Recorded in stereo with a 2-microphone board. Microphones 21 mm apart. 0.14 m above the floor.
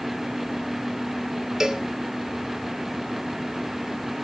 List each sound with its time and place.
1.6 s a cowbell: 25° right (ahead or behind), 1.0 m